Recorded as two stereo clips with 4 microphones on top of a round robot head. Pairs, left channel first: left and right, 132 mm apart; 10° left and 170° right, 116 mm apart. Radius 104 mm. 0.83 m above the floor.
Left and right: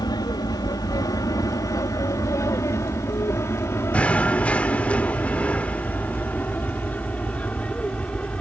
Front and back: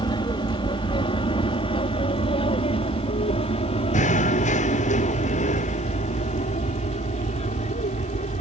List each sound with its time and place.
0.0 s an aircraft: 40° left; by 8.4 s 10° left
3.9 s knocking: 10° left